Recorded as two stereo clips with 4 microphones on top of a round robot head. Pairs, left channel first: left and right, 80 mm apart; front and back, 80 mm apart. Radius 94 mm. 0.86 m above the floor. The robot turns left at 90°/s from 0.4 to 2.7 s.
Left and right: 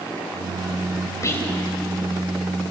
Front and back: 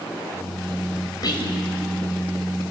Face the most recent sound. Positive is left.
turn(degrees=-95)